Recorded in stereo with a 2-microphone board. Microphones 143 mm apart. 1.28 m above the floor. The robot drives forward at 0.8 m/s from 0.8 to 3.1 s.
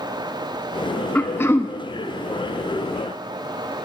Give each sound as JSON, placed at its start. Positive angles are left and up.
{"t": 1.1, "sound": "throat clearing", "side_deg": 15, "distance_m": 0.8}